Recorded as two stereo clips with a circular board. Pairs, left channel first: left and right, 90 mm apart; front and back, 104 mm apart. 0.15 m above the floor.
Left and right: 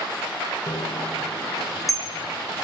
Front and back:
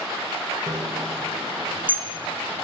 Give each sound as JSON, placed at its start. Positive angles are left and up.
{"t": 0.7, "sound": "a bicycle bell", "azimuth_deg": 130, "distance_m": 4.0}